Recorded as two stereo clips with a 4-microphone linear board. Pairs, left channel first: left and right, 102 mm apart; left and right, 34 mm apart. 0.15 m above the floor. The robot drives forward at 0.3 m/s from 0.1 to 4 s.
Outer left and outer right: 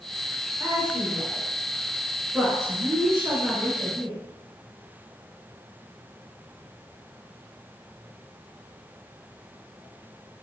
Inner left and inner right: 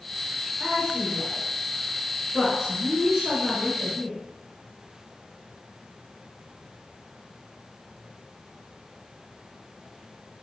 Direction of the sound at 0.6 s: 20° right (ahead or behind).